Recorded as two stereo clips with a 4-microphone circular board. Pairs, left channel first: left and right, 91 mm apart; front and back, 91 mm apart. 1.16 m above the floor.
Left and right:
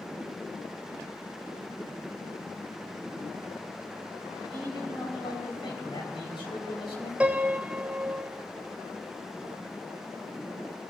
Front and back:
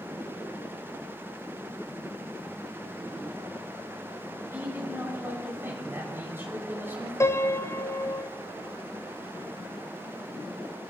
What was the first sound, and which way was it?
A man speaking, 115° left.